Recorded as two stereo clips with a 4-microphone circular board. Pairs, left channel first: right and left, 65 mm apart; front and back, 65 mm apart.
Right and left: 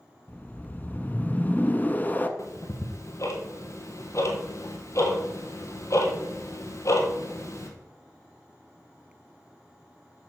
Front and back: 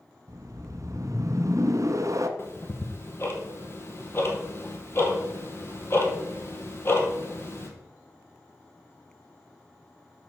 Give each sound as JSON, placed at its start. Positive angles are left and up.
{"t": 0.3, "sound": "a whoosh", "azimuth_deg": -150, "distance_m": 0.7}
{"t": 2.4, "sound": "ticking", "azimuth_deg": -50, "distance_m": 1.4}